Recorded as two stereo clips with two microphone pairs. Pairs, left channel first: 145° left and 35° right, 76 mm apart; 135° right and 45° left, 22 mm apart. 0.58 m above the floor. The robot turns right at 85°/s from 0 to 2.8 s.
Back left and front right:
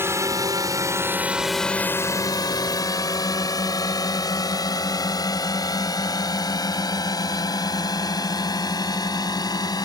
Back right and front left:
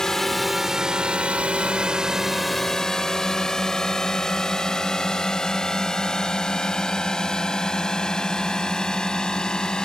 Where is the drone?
80° right; by 9.8 s 170° left.